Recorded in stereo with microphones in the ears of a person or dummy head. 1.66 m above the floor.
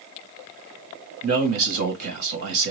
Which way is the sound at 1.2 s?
65° right (ahead or behind).